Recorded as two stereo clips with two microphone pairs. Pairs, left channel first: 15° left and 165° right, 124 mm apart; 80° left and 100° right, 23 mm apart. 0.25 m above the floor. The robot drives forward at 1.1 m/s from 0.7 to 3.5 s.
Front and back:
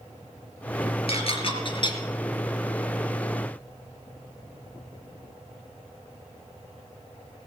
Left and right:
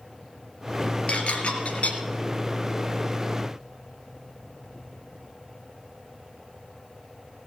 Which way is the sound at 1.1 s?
50° left.